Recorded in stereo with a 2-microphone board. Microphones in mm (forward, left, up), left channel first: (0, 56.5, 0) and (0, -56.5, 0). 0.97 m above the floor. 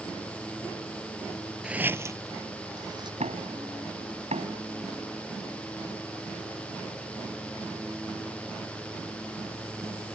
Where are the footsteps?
5° right (ahead or behind); by 3.1 s 40° right (ahead or behind).